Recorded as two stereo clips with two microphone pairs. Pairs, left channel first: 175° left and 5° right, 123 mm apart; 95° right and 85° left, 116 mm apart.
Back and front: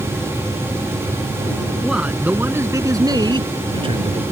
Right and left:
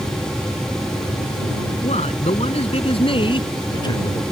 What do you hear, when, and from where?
1.8 s a man speaking: 90° right; by 4.2 s 40° right